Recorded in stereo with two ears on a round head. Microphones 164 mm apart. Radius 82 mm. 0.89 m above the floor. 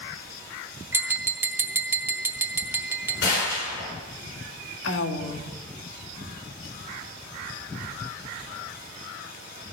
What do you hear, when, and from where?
0.9 s tapping: 10° right (ahead or behind), 1.2 m
3.2 s a gunshot: 75° left (ahead or behind), 6.5 m
4.8 s a woman speaking: 70° left (ahead or behind), 1.5 m